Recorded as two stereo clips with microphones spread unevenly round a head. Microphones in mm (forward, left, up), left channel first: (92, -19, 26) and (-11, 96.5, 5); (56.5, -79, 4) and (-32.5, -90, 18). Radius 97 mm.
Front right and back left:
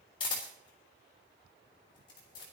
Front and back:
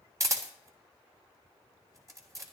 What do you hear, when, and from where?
0.2 s a camera shutter: 120° right, 3 m